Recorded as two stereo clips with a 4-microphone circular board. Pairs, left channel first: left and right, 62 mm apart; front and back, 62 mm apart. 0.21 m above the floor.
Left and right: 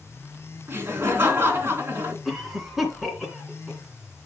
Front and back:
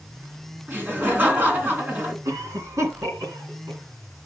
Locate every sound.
0.7 s laughter: 130° right, 2 m
2.2 s a cough: 175° right, 2.5 m